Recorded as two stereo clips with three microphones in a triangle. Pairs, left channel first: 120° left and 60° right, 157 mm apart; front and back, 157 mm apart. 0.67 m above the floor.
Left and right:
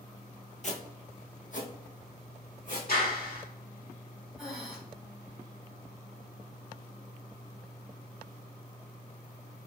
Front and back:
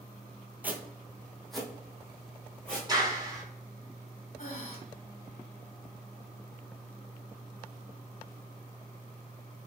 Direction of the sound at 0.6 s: 105° left.